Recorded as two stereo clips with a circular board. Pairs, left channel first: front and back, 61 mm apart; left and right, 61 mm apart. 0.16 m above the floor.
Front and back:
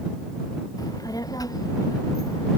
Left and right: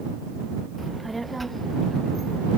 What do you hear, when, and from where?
0.8 s a child speaking: straight ahead; by 2.5 s 5° left